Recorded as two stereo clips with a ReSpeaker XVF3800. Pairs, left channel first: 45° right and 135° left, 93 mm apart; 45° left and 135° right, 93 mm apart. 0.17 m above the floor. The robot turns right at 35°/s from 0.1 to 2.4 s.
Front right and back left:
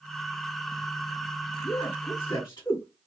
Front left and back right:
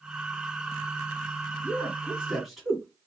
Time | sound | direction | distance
1.6 | a man speaking | 75° right | 1.9 m